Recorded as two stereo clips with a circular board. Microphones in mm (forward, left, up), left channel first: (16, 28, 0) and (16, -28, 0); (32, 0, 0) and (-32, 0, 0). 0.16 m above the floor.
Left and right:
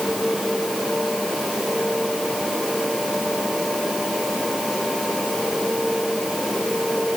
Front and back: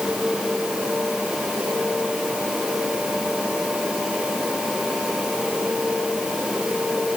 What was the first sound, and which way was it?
Only background noise.